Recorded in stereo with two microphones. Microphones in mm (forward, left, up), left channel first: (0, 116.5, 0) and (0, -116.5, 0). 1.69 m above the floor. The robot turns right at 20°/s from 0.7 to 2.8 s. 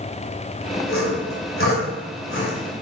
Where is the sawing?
60° left (ahead or behind), 2.5 m; by 2.6 s 55° left (ahead or behind), 2.5 m.